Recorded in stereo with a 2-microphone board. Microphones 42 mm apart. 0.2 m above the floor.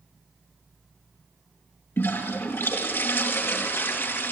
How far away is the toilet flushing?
About 3.5 m.